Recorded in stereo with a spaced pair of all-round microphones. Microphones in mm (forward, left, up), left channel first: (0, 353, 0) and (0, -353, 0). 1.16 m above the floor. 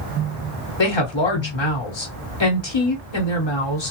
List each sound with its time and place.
0.8 s a woman speaking: 40° left (ahead or behind), 0.9 m